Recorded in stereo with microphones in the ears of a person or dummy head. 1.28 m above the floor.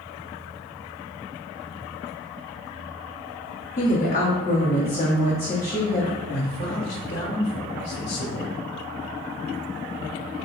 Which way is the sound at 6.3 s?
60° left (ahead or behind).